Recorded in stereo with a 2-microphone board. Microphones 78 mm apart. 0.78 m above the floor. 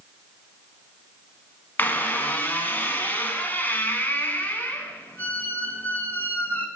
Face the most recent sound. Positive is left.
turn(degrees=25)  # may be behind; listen again after turning